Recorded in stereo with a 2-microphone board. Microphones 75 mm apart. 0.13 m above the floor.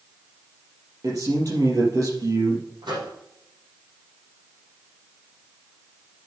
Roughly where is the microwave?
Right.